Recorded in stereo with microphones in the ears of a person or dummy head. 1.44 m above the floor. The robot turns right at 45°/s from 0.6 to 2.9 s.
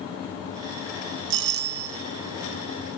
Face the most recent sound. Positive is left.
turn(degrees=-5)